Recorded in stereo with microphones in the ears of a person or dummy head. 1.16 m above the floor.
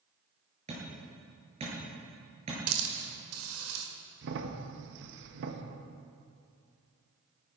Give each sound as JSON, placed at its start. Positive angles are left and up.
{"t": 0.7, "sound": "hammering", "side_deg": -35, "distance_m": 6.5}
{"t": 2.7, "sound": "a hiss", "side_deg": -75, "distance_m": 2.0}
{"t": 4.2, "sound": "a crack", "side_deg": -65, "distance_m": 1.5}